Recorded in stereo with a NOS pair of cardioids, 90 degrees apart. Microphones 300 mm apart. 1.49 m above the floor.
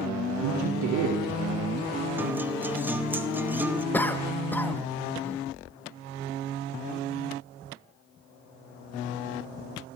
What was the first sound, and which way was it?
A man speaking, 65° right.